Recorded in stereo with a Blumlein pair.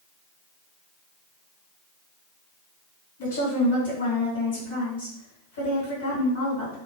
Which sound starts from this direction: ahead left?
A woman speaking, at 3.2 s.